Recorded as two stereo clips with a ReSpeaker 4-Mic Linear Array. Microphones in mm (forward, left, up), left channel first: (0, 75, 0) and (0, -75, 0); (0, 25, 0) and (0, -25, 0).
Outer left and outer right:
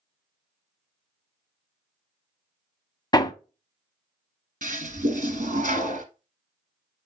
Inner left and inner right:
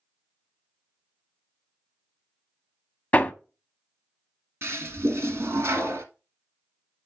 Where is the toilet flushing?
60° right (ahead or behind), 1.7 m.